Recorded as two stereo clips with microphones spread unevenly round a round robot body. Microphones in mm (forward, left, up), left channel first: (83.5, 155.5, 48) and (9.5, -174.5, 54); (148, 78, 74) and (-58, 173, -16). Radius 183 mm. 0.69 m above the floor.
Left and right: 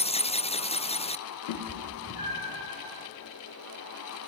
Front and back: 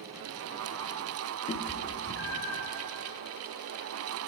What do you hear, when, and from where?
1.5 s a cat meowing: 40° left, 0.7 m; by 2.7 s straight ahead, 1.9 m